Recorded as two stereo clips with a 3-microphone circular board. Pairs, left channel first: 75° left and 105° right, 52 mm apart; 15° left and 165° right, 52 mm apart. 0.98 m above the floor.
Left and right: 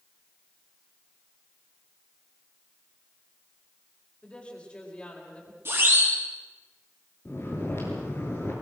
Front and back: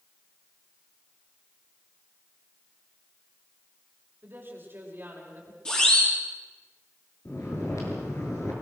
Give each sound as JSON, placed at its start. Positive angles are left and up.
{"t": 4.2, "sound": "a woman speaking", "azimuth_deg": 145, "distance_m": 4.5}
{"t": 5.7, "sound": "a siren", "azimuth_deg": -60, "distance_m": 9.0}
{"t": 7.2, "sound": "snoring", "azimuth_deg": 35, "distance_m": 7.0}